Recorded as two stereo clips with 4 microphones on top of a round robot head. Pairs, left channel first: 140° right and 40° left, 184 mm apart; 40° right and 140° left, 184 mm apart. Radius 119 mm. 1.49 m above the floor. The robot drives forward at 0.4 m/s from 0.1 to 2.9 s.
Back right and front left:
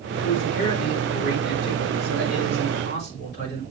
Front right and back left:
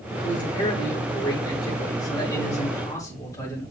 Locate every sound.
0.2 s a man speaking: 100° right, 5.5 m; by 3.6 s 110° right, 6 m